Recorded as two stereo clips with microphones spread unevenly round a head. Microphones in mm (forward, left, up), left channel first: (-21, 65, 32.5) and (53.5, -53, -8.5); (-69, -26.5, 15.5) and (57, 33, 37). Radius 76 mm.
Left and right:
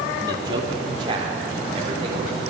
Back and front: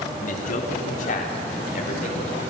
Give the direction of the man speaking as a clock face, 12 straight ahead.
4 o'clock.